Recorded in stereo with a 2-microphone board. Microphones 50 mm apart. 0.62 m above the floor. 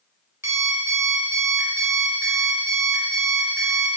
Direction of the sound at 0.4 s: 75° right (ahead or behind).